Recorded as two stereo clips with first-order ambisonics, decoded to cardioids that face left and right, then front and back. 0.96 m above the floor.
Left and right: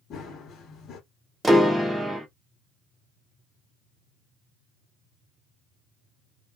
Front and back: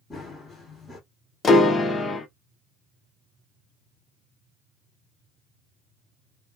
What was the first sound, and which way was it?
Running footsteps, 65° left.